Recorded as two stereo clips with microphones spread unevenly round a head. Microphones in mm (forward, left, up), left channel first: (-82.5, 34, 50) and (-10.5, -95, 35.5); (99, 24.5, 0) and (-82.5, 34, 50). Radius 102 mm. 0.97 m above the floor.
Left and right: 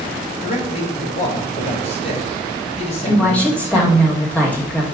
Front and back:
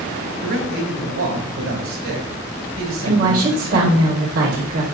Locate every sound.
0.4 s a man speaking: 165° left, 3.5 m
3.0 s a woman speaking: 160° right, 2.5 m